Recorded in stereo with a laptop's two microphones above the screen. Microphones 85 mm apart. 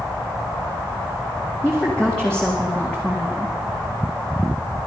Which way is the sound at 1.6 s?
10° left (ahead or behind).